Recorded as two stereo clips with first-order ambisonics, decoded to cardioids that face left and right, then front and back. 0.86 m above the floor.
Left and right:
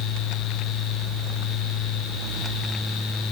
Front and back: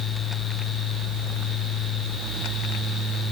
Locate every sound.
Only background noise.